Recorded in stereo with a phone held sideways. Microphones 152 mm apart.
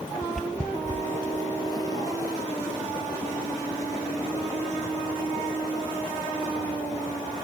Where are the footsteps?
Centre (ahead or behind); by 6.5 s 20° left (ahead or behind).